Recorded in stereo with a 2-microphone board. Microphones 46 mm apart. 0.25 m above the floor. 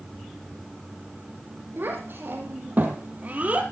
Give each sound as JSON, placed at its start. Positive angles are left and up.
{"t": 1.8, "sound": "a child speaking", "side_deg": -45, "distance_m": 5.0}